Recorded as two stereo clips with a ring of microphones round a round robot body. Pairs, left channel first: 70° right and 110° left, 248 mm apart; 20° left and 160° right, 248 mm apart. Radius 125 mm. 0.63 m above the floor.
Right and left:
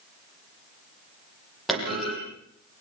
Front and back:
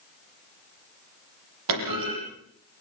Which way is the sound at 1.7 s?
160° right.